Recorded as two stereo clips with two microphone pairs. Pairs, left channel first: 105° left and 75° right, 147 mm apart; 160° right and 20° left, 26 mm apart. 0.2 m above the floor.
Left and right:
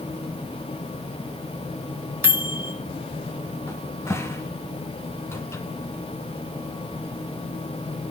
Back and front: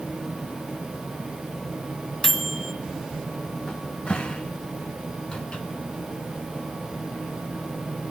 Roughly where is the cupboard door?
Behind.